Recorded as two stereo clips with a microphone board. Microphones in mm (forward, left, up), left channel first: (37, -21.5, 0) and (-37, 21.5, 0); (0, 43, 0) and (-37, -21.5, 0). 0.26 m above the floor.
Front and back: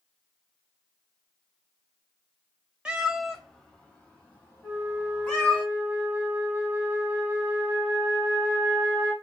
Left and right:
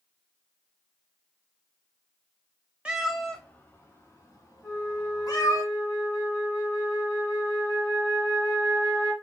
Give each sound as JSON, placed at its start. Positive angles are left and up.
{"t": 2.9, "sound": "a cat meowing", "azimuth_deg": -160, "distance_m": 0.5}
{"t": 4.6, "sound": "a flute", "azimuth_deg": 10, "distance_m": 1.7}